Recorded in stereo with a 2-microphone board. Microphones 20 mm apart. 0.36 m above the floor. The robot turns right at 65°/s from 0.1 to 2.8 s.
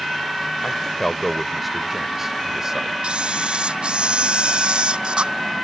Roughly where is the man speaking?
Behind left.